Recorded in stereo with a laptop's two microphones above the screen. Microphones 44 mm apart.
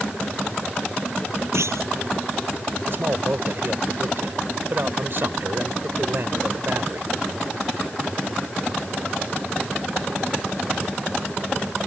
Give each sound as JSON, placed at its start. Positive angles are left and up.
{"t": 1.5, "sound": "a clunk", "side_deg": -85}
{"t": 2.9, "sound": "a man speaking", "side_deg": -50}